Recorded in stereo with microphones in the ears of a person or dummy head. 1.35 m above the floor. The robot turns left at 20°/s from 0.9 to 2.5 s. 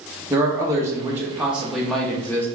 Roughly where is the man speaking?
Behind.